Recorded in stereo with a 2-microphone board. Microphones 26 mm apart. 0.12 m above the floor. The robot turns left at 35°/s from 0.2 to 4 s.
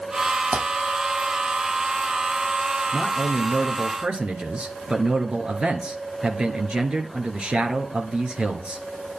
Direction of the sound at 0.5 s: 60° right (ahead or behind).